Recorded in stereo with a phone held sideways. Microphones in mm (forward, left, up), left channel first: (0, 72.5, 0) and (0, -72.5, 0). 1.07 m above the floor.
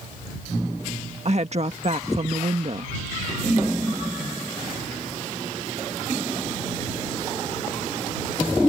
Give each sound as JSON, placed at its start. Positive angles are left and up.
{"t": 1.2, "sound": "a woman speaking", "side_deg": -50}